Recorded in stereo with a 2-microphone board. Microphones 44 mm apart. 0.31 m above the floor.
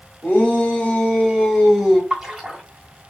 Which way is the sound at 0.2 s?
30° left (ahead or behind).